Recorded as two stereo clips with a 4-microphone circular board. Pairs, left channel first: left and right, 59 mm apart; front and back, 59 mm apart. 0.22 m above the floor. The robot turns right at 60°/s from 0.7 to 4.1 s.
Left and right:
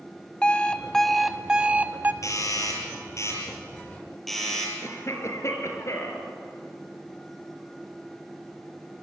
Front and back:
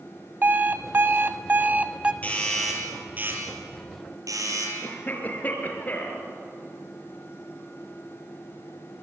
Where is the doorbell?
65° left, 6.5 m; by 4.7 s 175° left, 6.5 m.